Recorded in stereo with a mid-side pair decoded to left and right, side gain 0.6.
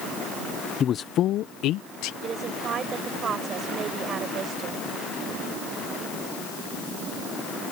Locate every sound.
0.8 s a man speaking: 40° left; by 2.1 s 75° left
2.2 s a woman speaking: 40° right